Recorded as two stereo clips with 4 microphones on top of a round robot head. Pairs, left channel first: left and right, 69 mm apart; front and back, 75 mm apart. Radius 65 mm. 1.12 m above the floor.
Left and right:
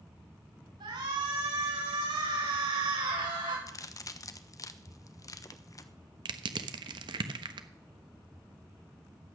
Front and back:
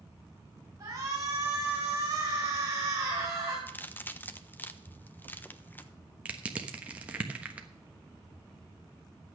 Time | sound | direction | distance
0.8 | a shout | 115° right | 5.5 m
3.7 | a crack | 65° left | 1.2 m
6.2 | crushing | 100° right | 1.2 m